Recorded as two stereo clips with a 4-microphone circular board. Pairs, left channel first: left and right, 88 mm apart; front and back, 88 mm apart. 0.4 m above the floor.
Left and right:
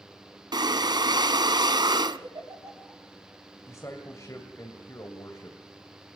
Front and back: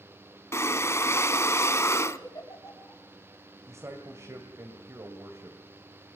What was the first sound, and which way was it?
Breathing, 55° right.